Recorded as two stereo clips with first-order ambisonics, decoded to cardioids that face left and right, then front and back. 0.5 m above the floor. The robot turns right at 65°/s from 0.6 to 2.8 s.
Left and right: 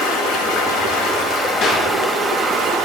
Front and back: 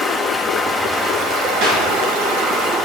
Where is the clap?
140° left, 5.5 m; by 1.9 s 155° left, 5.5 m.